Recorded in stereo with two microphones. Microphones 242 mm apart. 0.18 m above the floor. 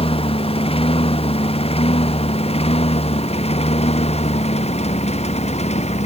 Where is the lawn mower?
20° left (ahead or behind); by 6.1 s 25° left (ahead or behind).